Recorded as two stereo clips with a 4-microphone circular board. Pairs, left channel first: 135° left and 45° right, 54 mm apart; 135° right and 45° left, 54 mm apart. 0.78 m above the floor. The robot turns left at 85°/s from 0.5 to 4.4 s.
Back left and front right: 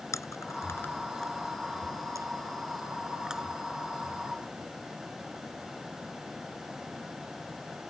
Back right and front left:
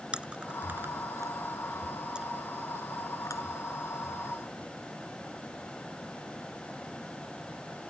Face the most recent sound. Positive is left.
turn(degrees=140)